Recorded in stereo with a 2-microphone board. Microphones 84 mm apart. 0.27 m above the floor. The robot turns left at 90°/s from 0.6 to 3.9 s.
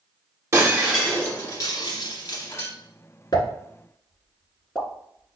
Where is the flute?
No flute in this recording.